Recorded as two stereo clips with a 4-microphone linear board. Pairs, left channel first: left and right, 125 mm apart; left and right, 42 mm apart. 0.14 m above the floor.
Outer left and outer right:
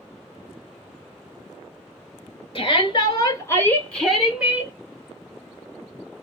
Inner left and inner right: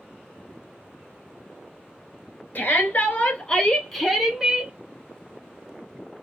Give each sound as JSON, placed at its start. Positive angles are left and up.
{"t": 2.5, "sound": "a shout", "side_deg": 45, "distance_m": 2.5}